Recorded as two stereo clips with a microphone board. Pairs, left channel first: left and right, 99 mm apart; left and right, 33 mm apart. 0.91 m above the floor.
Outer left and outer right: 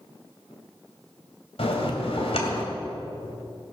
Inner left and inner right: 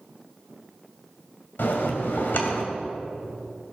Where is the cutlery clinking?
No cutlery clinking in this recording.